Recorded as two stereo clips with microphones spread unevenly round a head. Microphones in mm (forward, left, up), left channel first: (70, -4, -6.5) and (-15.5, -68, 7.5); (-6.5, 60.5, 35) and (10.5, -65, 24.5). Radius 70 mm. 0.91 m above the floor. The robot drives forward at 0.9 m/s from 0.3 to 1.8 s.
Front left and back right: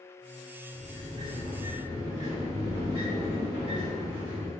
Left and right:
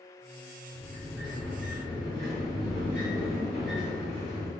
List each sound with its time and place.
0.7 s a sliding door: 175° right, 1.0 m